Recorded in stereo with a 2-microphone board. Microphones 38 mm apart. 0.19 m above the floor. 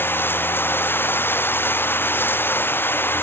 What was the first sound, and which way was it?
Running water, 65° left (ahead or behind).